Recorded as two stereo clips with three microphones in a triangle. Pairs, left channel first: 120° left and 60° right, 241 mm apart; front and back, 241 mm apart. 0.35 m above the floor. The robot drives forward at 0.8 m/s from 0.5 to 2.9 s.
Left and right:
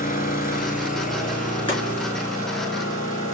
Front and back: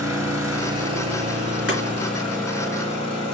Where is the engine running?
175° left, 1.2 m; by 3.3 s straight behind, 3 m.